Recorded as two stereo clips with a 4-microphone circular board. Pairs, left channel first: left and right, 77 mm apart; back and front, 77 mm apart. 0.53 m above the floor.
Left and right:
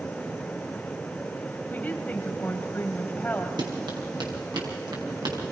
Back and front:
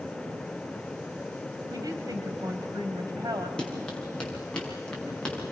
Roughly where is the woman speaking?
Ahead.